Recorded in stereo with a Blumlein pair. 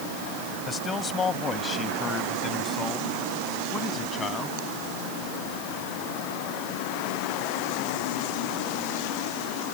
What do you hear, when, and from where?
0.7 s a man speaking: 15° left